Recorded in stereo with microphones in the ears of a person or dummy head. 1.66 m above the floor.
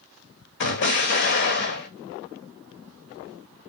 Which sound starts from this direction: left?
An explosion, at 0.6 s.